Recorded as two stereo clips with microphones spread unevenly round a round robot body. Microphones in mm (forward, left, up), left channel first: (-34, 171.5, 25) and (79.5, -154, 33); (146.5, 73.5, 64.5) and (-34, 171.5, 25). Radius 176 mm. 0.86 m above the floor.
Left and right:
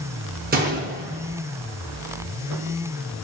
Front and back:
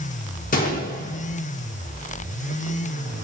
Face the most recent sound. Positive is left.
turn(degrees=-15)